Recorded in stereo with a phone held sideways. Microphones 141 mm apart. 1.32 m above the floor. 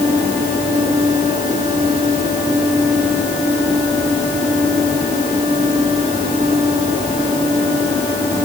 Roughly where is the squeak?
No squeak in this recording.